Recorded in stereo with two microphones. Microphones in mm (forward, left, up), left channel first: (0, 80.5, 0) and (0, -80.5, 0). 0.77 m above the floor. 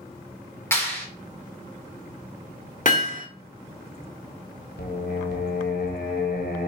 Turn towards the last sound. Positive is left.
turn(degrees=80)